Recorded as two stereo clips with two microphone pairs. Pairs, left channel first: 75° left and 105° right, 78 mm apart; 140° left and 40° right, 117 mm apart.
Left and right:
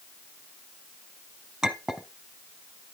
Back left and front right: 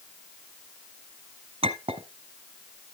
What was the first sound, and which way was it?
A clink, 25° right.